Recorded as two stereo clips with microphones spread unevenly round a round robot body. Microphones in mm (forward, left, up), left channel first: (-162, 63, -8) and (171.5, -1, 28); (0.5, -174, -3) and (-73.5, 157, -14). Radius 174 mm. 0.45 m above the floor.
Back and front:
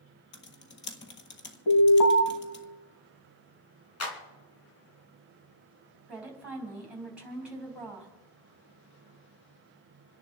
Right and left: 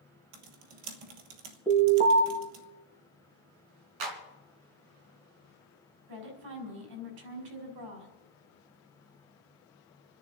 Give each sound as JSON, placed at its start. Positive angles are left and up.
{"t": 0.3, "sound": "typing on a keyboard", "azimuth_deg": 110, "distance_m": 1.7}
{"t": 1.7, "sound": "an alarm", "azimuth_deg": 170, "distance_m": 5.0}
{"t": 4.0, "sound": "a clap", "azimuth_deg": 120, "distance_m": 3.0}
{"t": 6.1, "sound": "a woman speaking", "azimuth_deg": 80, "distance_m": 4.0}